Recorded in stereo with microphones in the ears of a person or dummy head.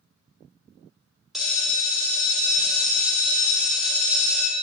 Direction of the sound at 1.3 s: Centre (ahead or behind).